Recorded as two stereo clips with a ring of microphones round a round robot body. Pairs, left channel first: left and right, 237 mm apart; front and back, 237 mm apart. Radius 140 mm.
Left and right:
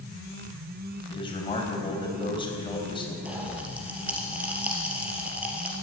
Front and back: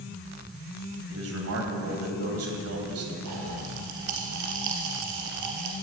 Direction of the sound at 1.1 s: 160° left.